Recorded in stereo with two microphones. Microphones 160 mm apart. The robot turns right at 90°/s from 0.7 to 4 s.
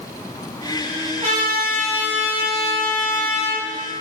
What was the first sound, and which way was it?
A trumpet, 115° right.